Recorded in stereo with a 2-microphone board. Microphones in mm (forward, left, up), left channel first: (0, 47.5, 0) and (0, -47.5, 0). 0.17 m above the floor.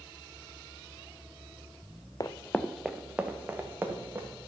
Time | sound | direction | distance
2.2 | running footsteps | 40° left (ahead or behind) | 0.6 m